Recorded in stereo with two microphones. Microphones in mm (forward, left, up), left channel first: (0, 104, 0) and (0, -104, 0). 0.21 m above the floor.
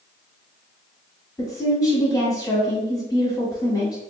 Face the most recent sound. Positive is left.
turn(degrees=20)  # may be behind; listen again after turning